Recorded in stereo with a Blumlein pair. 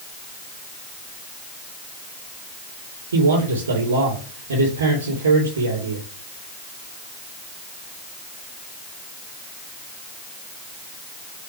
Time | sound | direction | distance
3.1 | a man speaking | 70° right | 3 m